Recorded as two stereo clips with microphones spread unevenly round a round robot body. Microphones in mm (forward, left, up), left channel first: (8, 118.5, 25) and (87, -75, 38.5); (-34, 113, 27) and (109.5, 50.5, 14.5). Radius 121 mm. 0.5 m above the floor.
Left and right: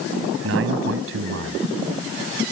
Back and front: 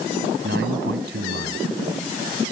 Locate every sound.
0.4 s a man speaking: 55° right